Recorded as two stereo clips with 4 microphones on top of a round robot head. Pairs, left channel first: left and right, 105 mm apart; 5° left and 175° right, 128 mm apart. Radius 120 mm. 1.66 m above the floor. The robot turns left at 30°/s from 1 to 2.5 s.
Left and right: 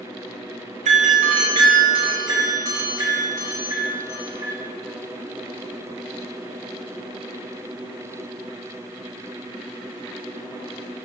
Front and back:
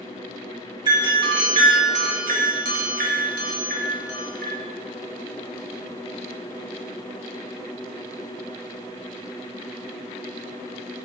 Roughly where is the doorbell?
Right.